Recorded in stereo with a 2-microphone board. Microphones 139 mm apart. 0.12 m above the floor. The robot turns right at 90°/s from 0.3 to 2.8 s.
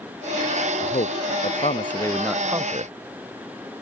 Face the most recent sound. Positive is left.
turn(degrees=-135)